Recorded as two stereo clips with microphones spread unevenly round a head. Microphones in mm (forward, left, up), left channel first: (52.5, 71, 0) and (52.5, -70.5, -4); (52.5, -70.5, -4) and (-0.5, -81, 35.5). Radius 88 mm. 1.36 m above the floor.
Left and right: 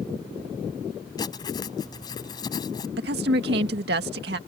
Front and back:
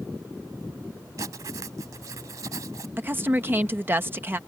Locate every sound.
1.2 s writing: 160° left
3.0 s a woman speaking: 115° right